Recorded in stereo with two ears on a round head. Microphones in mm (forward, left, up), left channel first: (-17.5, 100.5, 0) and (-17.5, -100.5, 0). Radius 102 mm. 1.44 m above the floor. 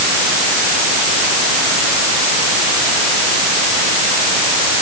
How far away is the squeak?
No squeak in this recording.